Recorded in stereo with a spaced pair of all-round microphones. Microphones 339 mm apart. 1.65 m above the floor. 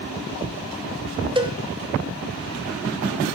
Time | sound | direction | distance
1.4 | a cowbell | 15° right (ahead or behind) | 0.5 m